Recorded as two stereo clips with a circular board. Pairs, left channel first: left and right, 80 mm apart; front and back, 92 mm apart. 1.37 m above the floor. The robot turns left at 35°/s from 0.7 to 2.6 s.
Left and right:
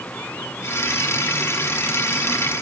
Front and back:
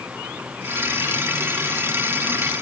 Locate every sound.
Only background noise.